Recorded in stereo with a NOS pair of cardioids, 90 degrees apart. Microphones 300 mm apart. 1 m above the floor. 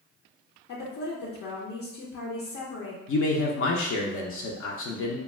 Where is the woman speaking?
60° left, 0.7 m.